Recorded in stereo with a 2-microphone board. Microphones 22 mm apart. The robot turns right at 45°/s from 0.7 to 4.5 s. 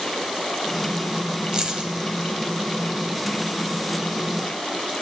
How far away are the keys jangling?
About 1.8 m.